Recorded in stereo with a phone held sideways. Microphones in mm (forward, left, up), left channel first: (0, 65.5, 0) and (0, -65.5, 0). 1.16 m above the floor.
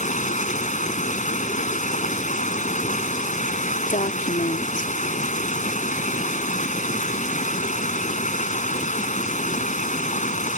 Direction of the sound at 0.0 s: 75° left (ahead or behind).